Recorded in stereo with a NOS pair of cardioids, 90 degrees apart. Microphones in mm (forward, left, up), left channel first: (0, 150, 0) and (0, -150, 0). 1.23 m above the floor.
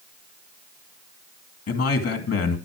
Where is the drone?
I don't hear a drone.